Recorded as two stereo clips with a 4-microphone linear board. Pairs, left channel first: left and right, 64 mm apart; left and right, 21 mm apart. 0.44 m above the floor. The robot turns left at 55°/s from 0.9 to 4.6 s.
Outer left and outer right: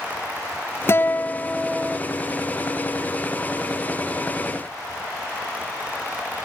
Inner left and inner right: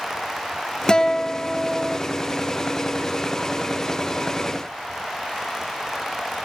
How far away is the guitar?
About 1.1 m.